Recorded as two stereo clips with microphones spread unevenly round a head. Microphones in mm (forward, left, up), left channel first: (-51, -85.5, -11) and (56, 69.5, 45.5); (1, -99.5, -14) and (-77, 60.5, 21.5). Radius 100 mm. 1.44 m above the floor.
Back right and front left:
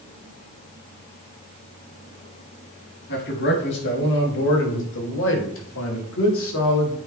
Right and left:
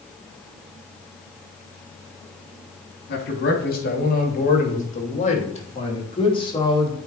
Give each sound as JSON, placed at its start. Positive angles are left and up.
{"t": 3.1, "sound": "a man speaking", "azimuth_deg": -90, "distance_m": 3.0}